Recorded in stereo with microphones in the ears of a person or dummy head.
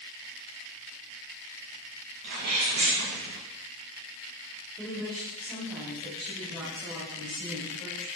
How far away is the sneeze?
About 2.0 m.